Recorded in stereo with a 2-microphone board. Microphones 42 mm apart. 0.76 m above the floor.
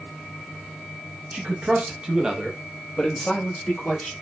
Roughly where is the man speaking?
Right.